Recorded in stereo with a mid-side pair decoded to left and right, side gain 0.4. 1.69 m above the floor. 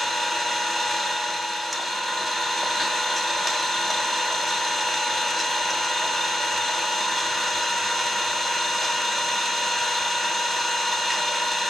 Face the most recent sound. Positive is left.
turn(degrees=-10)